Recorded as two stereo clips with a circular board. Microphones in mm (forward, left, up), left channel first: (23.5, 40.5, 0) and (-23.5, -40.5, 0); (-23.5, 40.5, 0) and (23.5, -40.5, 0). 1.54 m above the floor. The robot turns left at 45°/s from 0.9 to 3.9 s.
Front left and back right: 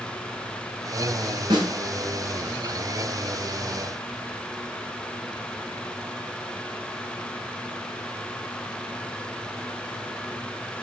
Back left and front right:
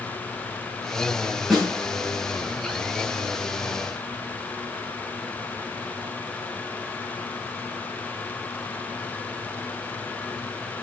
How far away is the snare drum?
About 6.5 m.